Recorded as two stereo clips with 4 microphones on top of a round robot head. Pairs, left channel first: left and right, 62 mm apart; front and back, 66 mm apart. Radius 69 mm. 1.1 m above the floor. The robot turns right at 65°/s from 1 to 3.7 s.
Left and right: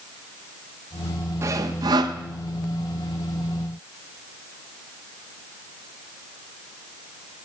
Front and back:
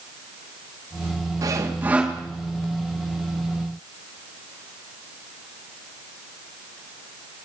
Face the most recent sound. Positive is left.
turn(degrees=10)